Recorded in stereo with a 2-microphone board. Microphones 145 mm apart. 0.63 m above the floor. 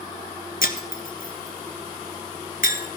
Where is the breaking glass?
65° left (ahead or behind), 1.4 m.